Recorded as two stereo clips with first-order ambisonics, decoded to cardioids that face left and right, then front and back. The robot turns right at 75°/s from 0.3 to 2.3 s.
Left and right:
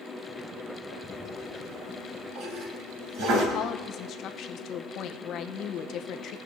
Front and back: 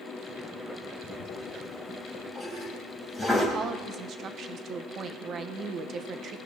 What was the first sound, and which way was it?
A toilet flushing, 170° left.